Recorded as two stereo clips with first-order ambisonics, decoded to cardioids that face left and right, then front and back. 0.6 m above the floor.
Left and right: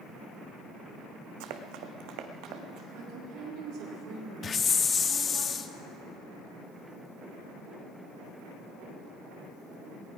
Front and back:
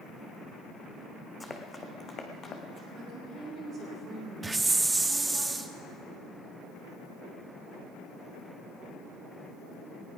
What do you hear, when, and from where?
1.4 s running footsteps: 85° right, 1.4 m; by 2.8 s 55° right, 2 m
2.9 s a woman speaking: 125° right, 5 m
4.4 s a hiss: 115° left, 0.7 m